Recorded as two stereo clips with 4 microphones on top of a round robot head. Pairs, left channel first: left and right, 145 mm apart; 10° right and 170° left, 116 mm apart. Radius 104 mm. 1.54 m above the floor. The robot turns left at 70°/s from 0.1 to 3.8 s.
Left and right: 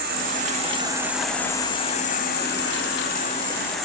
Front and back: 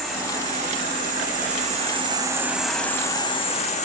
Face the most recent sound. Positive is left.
turn(degrees=0)